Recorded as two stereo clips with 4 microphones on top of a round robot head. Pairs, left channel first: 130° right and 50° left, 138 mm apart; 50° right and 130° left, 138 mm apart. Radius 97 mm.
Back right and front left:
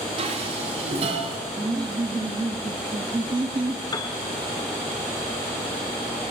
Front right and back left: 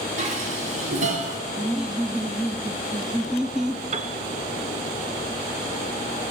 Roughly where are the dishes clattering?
Left.